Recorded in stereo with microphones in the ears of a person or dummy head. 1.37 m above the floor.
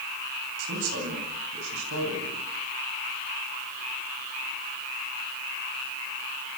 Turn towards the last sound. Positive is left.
turn(degrees=-90)